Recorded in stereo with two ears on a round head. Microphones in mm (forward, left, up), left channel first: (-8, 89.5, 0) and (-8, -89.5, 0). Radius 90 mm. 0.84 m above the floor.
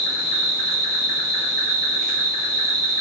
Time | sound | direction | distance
0.0 | an insect | 45° right (ahead or behind) | 1.6 m